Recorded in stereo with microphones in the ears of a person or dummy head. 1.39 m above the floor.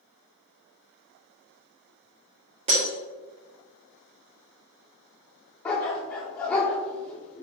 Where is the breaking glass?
30° right (ahead or behind), 1.7 m.